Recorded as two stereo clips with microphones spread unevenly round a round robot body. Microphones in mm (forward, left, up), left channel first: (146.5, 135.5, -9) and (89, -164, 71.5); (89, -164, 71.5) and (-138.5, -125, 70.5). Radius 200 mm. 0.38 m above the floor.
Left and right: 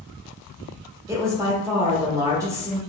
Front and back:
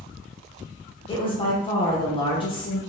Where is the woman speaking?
5° left, 0.9 m.